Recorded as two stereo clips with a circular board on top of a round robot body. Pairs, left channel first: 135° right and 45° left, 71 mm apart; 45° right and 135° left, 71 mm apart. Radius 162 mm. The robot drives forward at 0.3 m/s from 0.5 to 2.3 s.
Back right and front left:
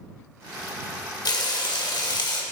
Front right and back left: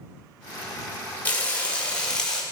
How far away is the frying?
About 1.4 m.